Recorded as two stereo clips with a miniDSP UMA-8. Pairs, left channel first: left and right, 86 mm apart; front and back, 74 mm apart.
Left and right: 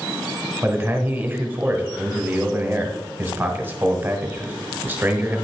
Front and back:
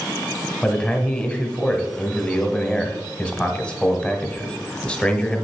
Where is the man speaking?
60° right, 1.1 m.